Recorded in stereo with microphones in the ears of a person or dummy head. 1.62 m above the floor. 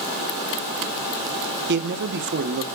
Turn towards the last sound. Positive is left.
turn(degrees=-60)  # may be behind; listen again after turning